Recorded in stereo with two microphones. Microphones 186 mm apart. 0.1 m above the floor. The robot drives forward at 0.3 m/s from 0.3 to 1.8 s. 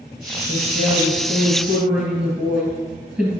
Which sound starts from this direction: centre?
A woman speaking, at 0.5 s.